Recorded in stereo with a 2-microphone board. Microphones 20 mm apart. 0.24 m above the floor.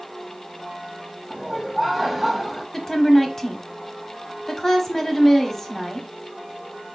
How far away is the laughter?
About 1.4 m.